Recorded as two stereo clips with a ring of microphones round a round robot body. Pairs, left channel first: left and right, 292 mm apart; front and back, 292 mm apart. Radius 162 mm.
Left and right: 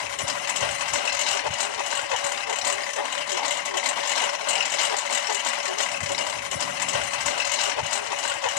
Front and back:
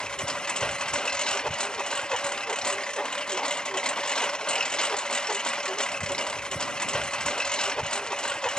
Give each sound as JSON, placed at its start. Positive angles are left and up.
{"t": 0.0, "sound": "a lawn mower", "azimuth_deg": 90}